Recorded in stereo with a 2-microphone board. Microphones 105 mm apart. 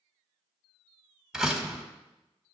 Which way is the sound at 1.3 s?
5° right (ahead or behind).